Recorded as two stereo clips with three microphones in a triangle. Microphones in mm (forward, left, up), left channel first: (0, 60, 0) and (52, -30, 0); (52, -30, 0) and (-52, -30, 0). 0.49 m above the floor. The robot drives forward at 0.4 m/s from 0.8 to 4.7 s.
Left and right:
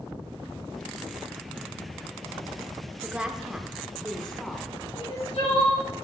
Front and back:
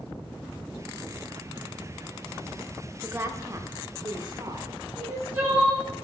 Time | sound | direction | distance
3.0 | a woman speaking | 130° right | 0.8 m
5.0 | crying | 115° left | 4 m